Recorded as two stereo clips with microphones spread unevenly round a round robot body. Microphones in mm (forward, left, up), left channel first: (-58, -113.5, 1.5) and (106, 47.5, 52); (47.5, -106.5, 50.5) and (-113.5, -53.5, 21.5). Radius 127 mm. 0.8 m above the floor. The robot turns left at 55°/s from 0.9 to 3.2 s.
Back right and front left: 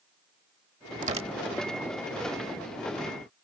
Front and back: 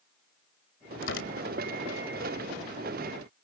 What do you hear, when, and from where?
1.0 s tearing paper: 15° right; by 1.6 s 45° right